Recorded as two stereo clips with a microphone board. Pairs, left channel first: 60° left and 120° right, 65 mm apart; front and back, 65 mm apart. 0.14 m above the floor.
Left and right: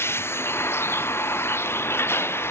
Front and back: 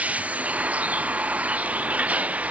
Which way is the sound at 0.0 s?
110° left.